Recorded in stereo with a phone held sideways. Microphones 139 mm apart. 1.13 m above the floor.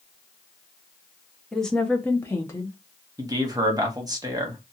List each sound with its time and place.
1.5 s a woman speaking: 5° left (ahead or behind), 0.7 m; by 2.8 s 20° left (ahead or behind), 0.8 m
3.2 s a man speaking: 25° right (ahead or behind), 0.9 m